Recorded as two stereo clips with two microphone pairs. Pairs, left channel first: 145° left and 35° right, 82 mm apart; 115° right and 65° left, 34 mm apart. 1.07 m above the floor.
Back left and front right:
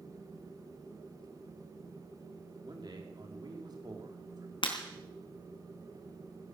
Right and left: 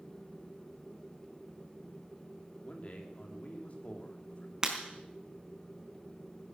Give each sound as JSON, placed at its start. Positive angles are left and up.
{"t": 2.6, "sound": "a man speaking", "azimuth_deg": -70, "distance_m": 3.0}
{"t": 4.6, "sound": "breaking glass", "azimuth_deg": 135, "distance_m": 3.5}